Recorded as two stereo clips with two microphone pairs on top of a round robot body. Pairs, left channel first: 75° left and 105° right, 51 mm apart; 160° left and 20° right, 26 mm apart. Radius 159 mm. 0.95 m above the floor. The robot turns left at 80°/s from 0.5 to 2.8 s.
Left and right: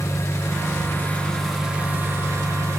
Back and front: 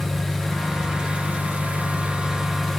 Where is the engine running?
65° left, 2 m; by 2.8 s 120° right, 2 m.